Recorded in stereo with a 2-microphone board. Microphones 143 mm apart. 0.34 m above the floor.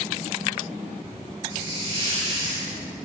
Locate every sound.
1.5 s a hiss: 30° right (ahead or behind), 1.4 m